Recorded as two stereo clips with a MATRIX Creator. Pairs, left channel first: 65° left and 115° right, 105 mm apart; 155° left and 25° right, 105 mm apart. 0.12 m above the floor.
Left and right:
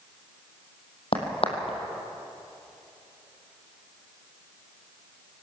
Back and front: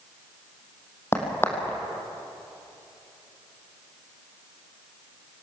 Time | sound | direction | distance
1.1 | a crack | 90° left | 3 m